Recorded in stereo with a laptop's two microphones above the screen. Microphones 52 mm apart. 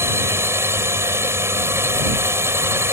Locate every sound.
0.0 s a drone: 55° right (ahead or behind)